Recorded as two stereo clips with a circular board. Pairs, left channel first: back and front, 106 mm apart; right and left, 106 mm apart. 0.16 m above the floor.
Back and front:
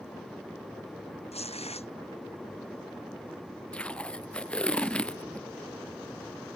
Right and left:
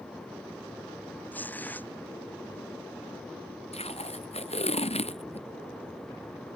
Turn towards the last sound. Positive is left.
turn(degrees=-100)